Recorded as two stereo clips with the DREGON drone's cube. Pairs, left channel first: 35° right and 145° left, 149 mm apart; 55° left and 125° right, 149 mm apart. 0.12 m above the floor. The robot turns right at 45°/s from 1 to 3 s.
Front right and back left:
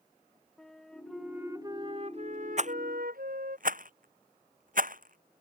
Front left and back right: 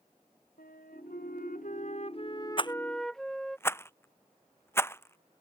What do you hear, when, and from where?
0.6 s a flute: 50° left; by 3.6 s 140° left
2.6 s a rattle: 110° left; by 5.4 s 130° left